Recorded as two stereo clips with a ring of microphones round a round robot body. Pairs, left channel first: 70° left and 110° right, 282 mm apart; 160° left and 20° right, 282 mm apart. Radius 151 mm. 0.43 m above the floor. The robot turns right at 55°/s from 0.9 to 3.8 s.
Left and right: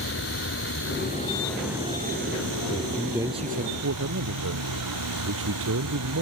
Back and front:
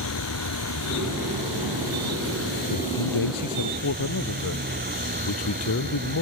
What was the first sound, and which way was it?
A vehicle, 120° left.